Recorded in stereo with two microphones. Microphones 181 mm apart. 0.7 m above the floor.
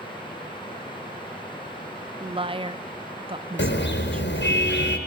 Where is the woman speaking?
30° right (ahead or behind), 0.7 m.